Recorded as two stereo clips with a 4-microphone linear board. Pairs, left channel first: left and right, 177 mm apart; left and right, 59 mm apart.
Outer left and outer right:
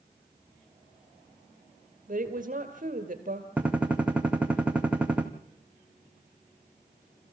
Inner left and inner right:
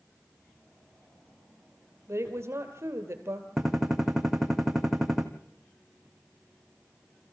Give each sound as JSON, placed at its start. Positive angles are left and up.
{"t": 2.1, "sound": "a woman speaking", "side_deg": -50, "distance_m": 2.5}
{"t": 3.6, "sound": "a gunshot", "side_deg": -5, "distance_m": 1.8}